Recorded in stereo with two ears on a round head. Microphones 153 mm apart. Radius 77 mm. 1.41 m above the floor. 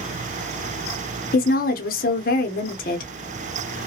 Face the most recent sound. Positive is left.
turn(degrees=50)  # may be behind; listen again after turning